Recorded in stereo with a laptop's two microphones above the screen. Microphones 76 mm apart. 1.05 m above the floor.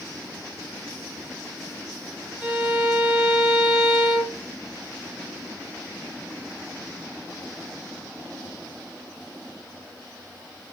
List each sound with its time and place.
2.4 s a violin: 15° right (ahead or behind), 1.6 m